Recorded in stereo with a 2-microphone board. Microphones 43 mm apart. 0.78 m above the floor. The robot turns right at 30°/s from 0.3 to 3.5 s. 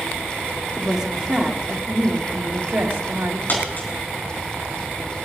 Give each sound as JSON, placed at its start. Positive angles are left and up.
{"t": 0.8, "sound": "a woman speaking", "azimuth_deg": -175, "distance_m": 2.0}
{"t": 3.5, "sound": "a dropped coin", "side_deg": 45, "distance_m": 4.5}